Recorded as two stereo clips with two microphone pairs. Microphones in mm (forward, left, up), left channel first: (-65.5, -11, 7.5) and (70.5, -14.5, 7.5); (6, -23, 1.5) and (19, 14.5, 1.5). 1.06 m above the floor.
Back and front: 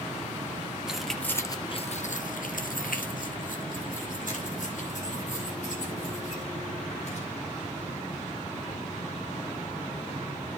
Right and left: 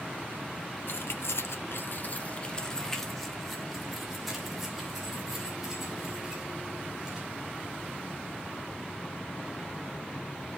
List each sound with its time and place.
0.9 s keys jangling: 85° right, 1.0 m; by 7.3 s 145° left, 4.5 m